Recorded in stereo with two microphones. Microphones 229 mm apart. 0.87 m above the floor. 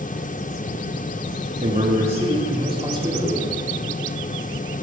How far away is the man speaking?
About 1.9 m.